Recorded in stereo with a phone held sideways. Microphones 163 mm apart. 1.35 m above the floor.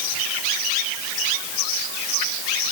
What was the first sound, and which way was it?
Only background noise.